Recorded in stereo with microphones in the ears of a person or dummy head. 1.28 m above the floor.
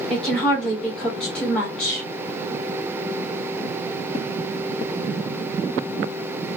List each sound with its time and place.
0.1 s a woman speaking: 5° left (ahead or behind), 1.2 m